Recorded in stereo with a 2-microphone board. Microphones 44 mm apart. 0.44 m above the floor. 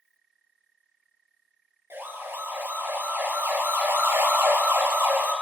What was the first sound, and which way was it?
A siren, 70° right (ahead or behind).